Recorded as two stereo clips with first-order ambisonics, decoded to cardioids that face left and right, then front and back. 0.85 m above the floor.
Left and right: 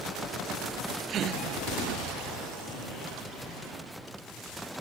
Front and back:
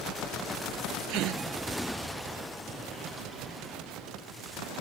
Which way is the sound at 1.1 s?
145° right.